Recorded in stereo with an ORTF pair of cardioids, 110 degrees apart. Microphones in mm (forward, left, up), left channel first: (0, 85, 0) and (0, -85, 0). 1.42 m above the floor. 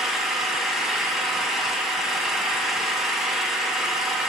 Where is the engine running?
Straight ahead, 0.8 m.